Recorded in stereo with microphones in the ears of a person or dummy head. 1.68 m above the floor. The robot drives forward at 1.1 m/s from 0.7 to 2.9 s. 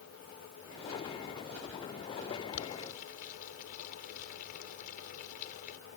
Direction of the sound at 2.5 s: 55° left (ahead or behind).